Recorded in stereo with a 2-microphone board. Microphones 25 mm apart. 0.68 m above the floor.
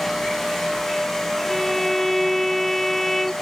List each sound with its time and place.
1.5 s a violin: 5° left (ahead or behind)